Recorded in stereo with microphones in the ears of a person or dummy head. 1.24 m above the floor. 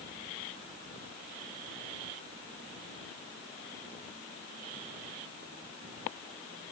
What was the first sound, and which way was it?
Only background noise.